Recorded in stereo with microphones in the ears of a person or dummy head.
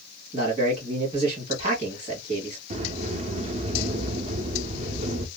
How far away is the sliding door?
About 0.5 m.